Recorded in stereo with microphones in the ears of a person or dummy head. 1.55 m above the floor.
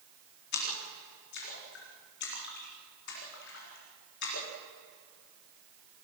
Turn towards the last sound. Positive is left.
turn(degrees=65)  # may be behind; listen again after turning